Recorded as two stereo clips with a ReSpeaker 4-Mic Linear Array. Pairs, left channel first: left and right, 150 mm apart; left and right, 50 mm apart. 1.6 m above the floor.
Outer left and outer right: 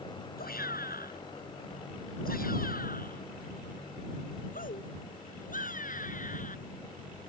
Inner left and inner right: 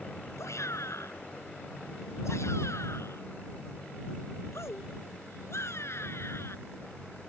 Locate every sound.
0.4 s a shout: 85° left; by 6.6 s 60° left (ahead or behind)